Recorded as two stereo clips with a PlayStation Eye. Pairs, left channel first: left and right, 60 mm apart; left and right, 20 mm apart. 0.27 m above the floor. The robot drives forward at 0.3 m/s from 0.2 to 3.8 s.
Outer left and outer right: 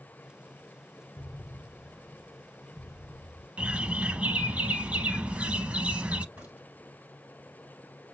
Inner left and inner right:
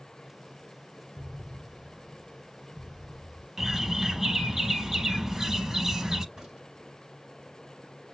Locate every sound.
1.2 s an explosion: 75° left (ahead or behind), 0.7 m; by 3.5 s 45° left (ahead or behind), 1.0 m
3.6 s a bird: 20° right (ahead or behind), 0.6 m
6.3 s a crack: 20° right (ahead or behind), 1.5 m